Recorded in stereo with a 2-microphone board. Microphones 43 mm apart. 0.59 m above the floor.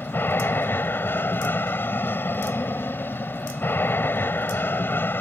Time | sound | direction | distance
0.0 | an aircraft | 60° left (ahead or behind) | ?